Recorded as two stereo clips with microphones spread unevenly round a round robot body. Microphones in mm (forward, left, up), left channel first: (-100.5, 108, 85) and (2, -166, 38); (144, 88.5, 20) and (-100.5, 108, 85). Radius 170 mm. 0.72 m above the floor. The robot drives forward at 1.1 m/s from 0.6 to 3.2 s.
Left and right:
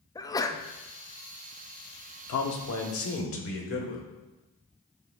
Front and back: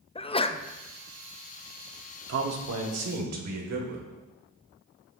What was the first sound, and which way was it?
A sneeze, 25° left.